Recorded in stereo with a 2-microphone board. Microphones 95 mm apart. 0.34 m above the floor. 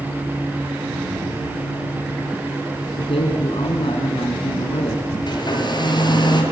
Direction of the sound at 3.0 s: 75° left (ahead or behind).